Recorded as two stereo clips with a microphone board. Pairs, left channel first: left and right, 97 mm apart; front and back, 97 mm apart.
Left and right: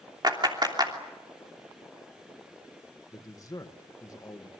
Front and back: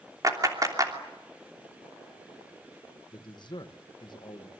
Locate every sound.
0.2 s a clap: 130° right, 3 m
3.1 s a man speaking: 40° left, 1.6 m